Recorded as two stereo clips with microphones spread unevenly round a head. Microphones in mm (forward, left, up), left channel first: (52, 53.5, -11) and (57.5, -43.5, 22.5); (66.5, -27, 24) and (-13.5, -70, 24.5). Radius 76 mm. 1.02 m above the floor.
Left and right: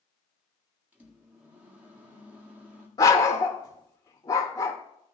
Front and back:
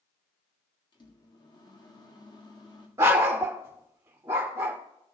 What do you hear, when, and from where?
0.9 s a microwave: 10° right, 1.8 m
3.0 s a dog barking: 160° left, 0.7 m